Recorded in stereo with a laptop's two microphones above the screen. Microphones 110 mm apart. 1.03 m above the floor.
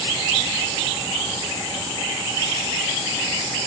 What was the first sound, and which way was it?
Only background noise.